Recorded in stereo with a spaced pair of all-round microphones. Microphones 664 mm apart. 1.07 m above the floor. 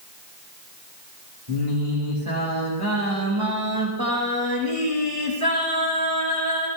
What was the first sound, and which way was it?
Singing, 40° right (ahead or behind).